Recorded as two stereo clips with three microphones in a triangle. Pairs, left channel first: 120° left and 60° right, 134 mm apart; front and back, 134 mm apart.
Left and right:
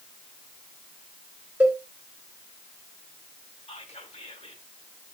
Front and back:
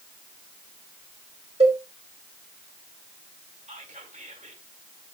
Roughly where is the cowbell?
Behind right.